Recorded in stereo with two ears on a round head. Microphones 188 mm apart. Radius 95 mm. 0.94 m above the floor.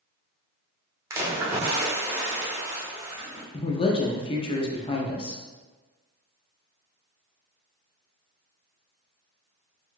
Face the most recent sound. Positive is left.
turn(degrees=25)  # may be behind; listen again after turning